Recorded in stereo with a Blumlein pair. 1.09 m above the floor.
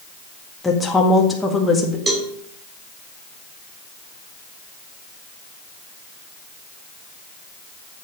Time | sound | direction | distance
0.6 | a woman speaking | 10° left | 1.7 m
2.1 | a cowbell | 15° right | 1.8 m